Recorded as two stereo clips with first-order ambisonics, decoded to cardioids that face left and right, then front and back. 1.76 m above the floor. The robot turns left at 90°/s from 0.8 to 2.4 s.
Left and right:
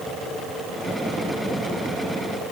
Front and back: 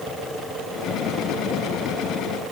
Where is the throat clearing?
No throat clearing in this recording.